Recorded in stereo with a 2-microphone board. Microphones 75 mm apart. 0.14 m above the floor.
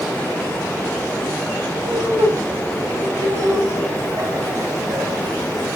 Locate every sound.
1.8 s laughter: 35° right (ahead or behind), 5 m; by 5.8 s 50° right (ahead or behind), 7 m